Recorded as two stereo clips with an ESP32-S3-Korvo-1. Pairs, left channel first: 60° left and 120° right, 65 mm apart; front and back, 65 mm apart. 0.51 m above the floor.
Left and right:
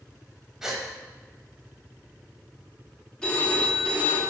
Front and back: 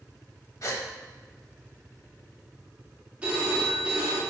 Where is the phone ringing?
125° left, 0.7 m.